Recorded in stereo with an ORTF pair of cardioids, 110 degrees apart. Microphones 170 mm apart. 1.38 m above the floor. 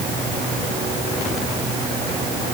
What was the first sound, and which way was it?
Only background noise.